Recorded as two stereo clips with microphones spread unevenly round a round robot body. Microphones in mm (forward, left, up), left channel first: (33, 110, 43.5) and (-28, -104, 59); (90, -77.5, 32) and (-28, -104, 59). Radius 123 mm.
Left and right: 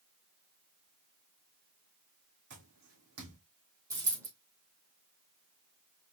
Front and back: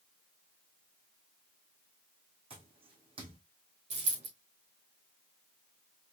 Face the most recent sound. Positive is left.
turn(degrees=180)